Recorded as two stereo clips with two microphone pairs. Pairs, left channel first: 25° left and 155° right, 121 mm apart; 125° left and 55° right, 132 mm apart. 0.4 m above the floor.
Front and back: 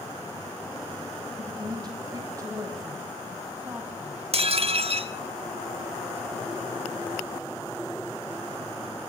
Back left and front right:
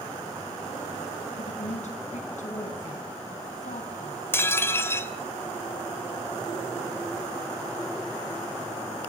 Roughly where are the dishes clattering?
Behind.